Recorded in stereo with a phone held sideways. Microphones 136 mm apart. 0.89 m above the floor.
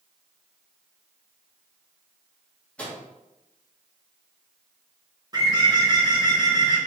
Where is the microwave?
10° left (ahead or behind), 1.3 m.